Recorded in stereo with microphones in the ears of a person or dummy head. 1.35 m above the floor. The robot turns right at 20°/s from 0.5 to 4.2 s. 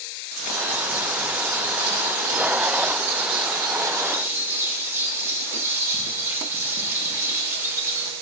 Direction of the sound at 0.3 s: 90° right.